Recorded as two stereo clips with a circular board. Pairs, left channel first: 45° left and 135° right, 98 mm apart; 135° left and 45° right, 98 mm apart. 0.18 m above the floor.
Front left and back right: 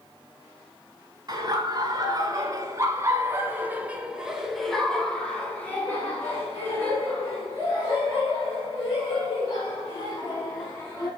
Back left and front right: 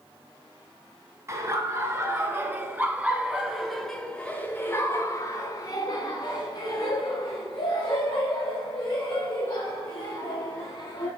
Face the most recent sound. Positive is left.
turn(degrees=95)